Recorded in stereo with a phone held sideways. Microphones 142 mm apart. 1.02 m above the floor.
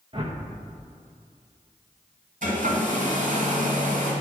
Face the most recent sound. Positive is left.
turn(degrees=-75)  # may be behind; listen again after turning